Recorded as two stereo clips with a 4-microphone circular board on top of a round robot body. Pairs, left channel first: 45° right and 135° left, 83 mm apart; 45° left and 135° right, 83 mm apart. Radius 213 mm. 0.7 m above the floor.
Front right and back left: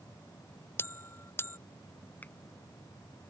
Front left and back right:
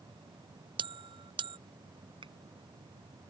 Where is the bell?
110° right.